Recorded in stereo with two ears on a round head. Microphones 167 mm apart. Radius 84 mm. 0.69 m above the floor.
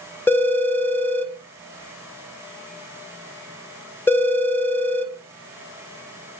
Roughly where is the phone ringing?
Centre.